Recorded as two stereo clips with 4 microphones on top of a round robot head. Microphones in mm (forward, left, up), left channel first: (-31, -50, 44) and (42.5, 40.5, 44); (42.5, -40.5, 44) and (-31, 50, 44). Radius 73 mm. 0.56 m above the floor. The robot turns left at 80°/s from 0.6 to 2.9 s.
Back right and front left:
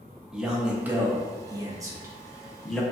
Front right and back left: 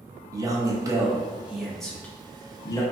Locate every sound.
0.3 s a man speaking: 130° left, 0.6 m; by 2.8 s 50° right, 0.6 m